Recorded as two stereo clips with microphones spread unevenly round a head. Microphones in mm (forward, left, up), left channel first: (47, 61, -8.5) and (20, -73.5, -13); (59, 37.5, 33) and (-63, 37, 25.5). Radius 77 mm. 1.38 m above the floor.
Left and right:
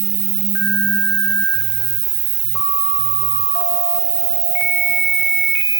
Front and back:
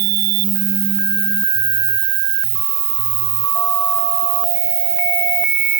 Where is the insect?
145° right.